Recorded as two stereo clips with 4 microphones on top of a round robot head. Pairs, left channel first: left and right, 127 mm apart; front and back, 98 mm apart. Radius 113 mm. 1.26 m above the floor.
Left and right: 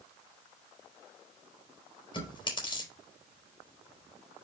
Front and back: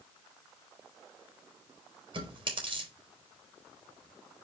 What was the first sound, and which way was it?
Chewing, 145° left.